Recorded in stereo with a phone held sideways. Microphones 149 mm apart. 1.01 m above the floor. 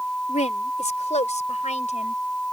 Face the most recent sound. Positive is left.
turn(degrees=50)  # may be behind; listen again after turning